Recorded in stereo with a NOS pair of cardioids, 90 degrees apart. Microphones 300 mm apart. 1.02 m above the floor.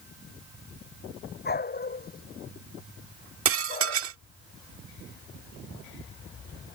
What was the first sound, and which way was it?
A dog barking, 30° left.